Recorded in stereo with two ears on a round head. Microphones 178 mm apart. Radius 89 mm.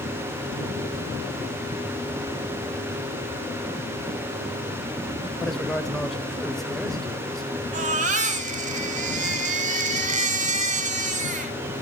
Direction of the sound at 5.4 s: 5° left (ahead or behind).